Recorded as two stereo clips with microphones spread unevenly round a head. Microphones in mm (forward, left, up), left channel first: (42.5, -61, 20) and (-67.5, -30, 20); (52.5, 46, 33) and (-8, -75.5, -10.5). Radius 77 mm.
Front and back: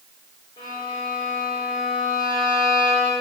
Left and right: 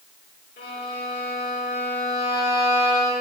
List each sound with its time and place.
0.6 s a violin: 50° left, 5.5 m